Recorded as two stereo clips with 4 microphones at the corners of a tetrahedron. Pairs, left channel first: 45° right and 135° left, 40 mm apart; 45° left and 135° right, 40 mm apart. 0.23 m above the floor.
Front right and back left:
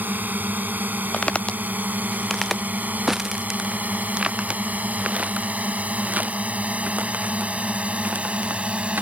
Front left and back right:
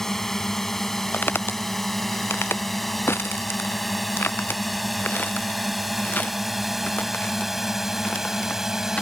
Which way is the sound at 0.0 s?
125° left.